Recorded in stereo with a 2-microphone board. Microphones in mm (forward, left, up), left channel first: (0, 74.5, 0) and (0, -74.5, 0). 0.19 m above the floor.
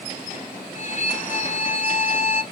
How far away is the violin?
About 0.7 m.